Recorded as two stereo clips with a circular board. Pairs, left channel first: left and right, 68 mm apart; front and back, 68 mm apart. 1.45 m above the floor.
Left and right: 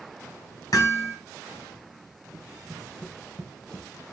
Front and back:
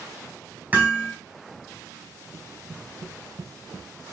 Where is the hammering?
115° left, 3.5 m.